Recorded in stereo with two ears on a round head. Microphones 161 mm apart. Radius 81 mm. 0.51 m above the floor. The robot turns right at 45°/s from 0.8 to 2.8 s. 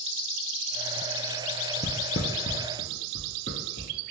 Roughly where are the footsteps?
Left.